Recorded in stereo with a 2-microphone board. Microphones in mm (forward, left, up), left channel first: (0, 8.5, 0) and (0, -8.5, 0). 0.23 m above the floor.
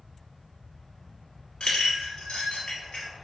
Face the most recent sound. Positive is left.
turn(degrees=55)  # may be behind; listen again after turning